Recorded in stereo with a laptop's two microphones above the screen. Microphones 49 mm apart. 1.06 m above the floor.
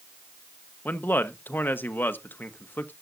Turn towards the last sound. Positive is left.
turn(degrees=40)  # may be behind; listen again after turning